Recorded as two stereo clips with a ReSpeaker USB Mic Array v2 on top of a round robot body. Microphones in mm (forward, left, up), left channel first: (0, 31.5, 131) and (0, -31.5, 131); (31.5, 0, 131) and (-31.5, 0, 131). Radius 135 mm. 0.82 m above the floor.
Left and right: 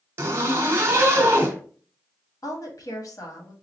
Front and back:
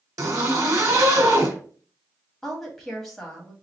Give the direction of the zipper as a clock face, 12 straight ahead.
5 o'clock.